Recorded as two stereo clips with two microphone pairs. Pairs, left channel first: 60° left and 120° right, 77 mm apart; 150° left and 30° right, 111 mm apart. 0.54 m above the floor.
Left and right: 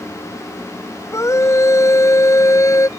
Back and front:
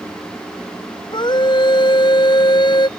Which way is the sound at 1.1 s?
110° left.